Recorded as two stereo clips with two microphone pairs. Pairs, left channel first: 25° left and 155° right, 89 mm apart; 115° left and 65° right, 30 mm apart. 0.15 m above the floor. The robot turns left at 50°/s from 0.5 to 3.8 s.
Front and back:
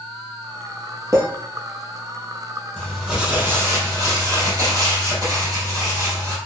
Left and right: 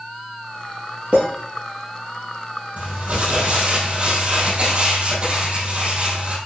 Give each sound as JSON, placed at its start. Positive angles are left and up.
{"t": 1.1, "sound": "a clink", "azimuth_deg": -100, "distance_m": 2.5}
{"t": 2.8, "sound": "crumpling", "azimuth_deg": -55, "distance_m": 2.5}